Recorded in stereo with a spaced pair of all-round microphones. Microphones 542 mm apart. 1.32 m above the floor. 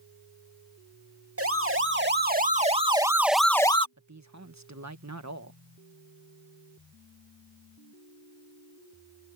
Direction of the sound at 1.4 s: 25° right (ahead or behind).